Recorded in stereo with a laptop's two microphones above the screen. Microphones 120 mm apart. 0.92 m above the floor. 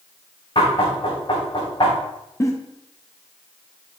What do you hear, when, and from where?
0.6 s knocking: 55° left (ahead or behind), 3 m
2.4 s a giggle: 30° left (ahead or behind), 0.8 m